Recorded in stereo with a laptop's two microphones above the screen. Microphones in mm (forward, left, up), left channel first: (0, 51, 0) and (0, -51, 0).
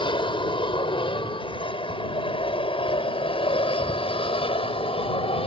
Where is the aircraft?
55° left (ahead or behind); by 5.5 s 65° left (ahead or behind).